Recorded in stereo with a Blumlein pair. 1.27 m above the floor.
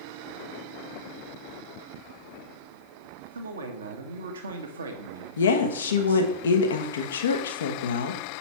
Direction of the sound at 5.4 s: 65° left.